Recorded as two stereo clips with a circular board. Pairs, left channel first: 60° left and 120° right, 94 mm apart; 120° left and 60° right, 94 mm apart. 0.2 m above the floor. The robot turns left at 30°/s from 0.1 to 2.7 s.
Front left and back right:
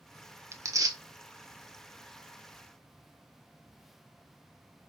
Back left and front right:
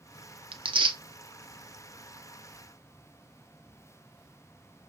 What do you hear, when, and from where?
0.5 s tearing paper: 65° right, 0.6 m; by 1.0 s 80° right, 0.6 m